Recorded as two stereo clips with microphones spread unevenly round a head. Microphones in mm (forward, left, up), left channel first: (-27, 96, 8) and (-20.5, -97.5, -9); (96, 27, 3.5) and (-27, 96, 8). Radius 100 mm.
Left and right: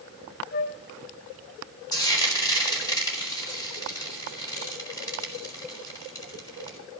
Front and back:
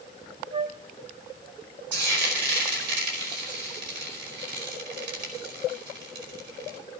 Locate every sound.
0.5 s a flute: 110° left, 0.9 m
1.9 s frying: 165° left, 4.5 m